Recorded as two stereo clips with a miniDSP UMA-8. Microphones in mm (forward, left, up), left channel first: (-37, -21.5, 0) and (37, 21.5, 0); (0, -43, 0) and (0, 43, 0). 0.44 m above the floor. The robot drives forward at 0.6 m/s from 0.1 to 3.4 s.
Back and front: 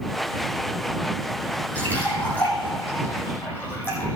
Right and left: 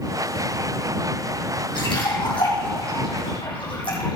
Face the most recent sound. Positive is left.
turn(degrees=-85)